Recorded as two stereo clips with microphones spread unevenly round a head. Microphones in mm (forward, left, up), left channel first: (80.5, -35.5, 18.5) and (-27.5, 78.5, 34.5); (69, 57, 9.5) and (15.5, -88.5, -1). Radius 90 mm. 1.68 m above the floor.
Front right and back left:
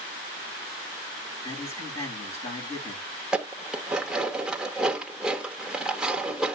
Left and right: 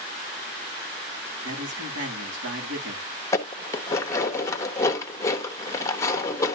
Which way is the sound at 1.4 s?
110° right.